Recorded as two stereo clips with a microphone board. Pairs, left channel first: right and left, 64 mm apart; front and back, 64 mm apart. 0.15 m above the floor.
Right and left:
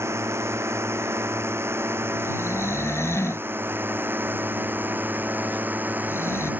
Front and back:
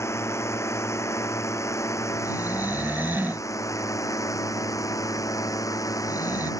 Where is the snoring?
125° right.